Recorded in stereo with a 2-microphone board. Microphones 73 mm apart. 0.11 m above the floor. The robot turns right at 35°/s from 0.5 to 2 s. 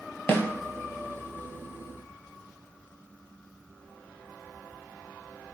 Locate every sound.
0.3 s a snare drum: 35° left (ahead or behind), 0.7 m